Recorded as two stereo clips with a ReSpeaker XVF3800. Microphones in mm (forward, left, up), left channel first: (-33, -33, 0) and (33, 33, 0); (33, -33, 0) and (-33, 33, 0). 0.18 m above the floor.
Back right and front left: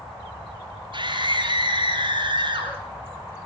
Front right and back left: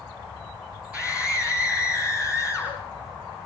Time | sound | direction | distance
0.9 | a scream | 60° left | 3.5 m